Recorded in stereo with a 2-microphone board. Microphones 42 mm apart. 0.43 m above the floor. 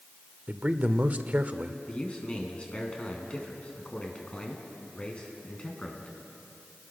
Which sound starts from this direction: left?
A man speaking, at 1.9 s.